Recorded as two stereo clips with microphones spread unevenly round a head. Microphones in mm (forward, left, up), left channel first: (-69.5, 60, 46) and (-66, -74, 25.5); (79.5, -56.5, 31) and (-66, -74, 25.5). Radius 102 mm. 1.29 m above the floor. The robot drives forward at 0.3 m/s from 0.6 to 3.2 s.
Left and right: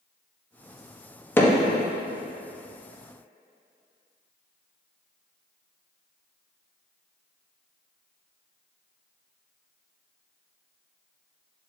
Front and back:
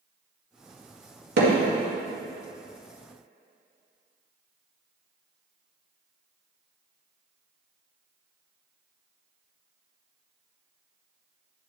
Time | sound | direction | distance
1.4 | hammering | 165° left | 2.0 m